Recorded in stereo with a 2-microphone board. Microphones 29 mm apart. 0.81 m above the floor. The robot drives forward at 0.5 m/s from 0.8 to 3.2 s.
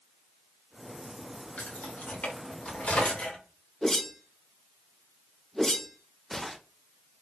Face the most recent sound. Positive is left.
turn(degrees=15)  # may be behind; listen again after turning